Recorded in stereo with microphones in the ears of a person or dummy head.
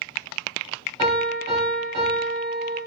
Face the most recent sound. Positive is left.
turn(degrees=-25)  # may be behind; listen again after turning